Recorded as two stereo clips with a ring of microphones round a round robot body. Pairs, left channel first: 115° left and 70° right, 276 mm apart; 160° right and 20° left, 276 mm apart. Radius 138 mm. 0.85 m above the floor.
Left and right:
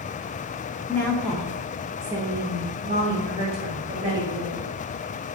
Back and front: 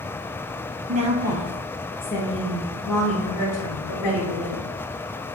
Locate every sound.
0.9 s a woman speaking: 40° left, 0.7 m; by 4.7 s 140° right, 1.8 m